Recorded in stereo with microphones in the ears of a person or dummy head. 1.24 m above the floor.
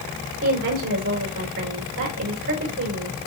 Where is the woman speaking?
75° right (ahead or behind), 4.5 m.